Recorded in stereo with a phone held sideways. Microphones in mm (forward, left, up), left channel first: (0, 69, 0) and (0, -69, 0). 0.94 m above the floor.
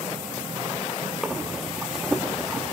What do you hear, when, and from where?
1.2 s breathing: 5° right (ahead or behind), 1.6 m